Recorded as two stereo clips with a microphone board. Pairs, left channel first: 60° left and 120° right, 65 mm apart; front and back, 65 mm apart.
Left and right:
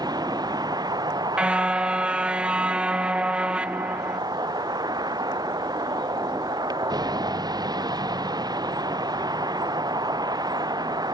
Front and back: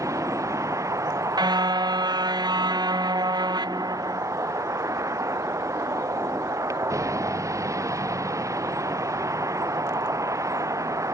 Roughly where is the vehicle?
Behind right.